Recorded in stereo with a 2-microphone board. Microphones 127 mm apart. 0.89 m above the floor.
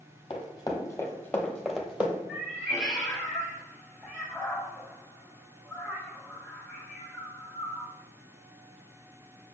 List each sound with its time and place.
0.3 s running footsteps: 40° left (ahead or behind), 1.2 m; by 2.2 s 15° right (ahead or behind), 1.0 m
2.3 s a cat meowing: centre (ahead or behind), 1.2 m